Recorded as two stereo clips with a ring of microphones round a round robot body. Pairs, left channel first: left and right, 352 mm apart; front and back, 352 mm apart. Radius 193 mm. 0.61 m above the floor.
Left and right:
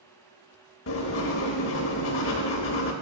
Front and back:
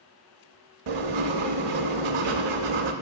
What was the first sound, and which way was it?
Writing, 145° left.